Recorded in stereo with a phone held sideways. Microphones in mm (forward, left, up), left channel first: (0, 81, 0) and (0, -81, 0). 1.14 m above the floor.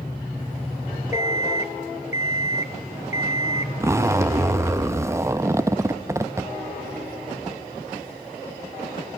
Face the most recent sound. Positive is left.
turn(degrees=-15)  # may be behind; listen again after turning